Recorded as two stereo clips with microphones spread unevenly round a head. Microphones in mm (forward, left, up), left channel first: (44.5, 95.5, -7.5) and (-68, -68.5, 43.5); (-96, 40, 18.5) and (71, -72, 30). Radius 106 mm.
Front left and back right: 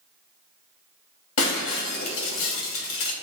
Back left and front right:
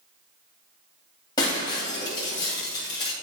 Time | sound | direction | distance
1.4 | breaking glass | 75° left | 2.5 m